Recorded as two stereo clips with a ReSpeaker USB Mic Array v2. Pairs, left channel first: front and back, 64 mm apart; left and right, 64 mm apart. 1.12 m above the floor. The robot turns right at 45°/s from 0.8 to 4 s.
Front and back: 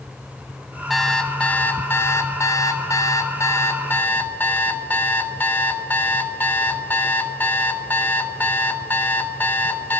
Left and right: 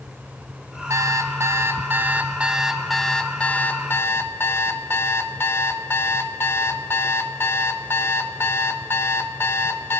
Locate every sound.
0.9 s an alarm clock: 90° right, 0.6 m; by 10.0 s 50° left, 0.6 m